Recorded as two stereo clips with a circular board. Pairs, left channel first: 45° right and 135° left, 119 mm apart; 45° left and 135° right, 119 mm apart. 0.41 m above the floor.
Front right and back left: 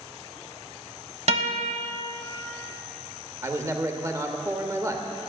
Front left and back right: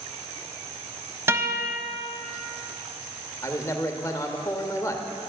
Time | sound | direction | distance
1.3 | a guitar | 155° left | 1.0 m
3.4 | a man speaking | 85° left | 0.9 m